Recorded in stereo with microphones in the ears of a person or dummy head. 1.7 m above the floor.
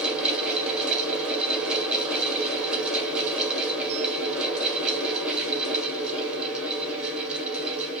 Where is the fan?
5° right (ahead or behind), 1.6 m.